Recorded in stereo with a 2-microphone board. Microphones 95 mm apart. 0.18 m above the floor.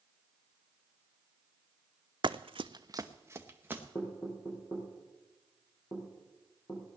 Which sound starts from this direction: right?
Running footsteps, at 2.2 s.